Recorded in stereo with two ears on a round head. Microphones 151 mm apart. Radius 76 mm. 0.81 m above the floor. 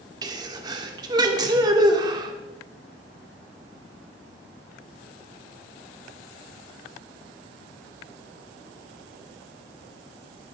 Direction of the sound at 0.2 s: 25° right (ahead or behind).